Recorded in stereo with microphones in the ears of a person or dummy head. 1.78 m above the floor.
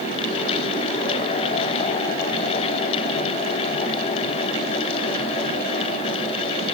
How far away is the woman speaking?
I don't hear a woman speaking.